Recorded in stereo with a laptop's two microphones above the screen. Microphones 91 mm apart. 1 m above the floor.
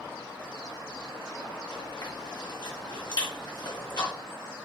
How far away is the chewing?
About 1.3 m.